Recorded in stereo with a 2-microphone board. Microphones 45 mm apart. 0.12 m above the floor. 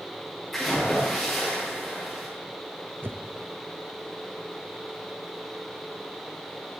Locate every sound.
0.5 s a splash: 5° left (ahead or behind), 9 m
3.0 s a whoosh: 50° right (ahead or behind), 1.2 m